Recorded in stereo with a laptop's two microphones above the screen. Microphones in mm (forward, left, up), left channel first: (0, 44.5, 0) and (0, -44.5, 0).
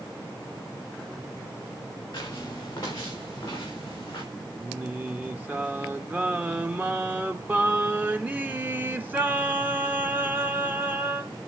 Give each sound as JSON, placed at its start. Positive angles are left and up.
{"t": 2.1, "sound": "footsteps", "side_deg": 40, "distance_m": 5.0}
{"t": 4.6, "sound": "singing", "side_deg": -20, "distance_m": 0.7}